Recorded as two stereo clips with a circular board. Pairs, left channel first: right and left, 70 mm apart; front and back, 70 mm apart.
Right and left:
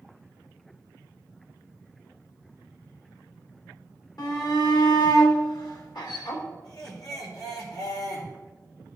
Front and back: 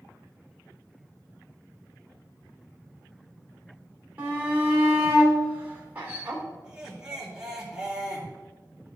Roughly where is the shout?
Behind right.